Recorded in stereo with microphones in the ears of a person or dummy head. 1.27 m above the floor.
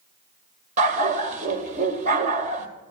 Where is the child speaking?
I don't hear a child speaking.